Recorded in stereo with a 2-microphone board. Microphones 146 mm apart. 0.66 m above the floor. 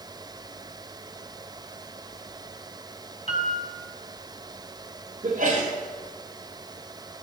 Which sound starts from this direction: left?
A piano, at 3.3 s.